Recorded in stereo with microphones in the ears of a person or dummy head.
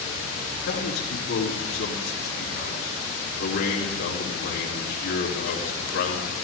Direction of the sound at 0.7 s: 70° left (ahead or behind).